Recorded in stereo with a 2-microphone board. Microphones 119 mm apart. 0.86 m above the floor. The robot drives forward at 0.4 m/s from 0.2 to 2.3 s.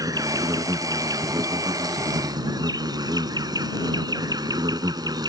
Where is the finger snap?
I don't hear a finger snap.